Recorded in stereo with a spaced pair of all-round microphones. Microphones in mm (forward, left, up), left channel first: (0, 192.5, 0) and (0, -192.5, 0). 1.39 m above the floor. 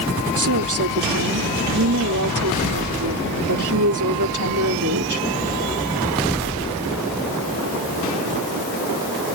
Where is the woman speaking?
50° right (ahead or behind).